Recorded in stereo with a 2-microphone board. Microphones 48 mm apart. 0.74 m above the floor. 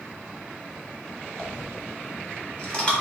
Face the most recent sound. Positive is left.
turn(degrees=20)  # may be behind; listen again after turning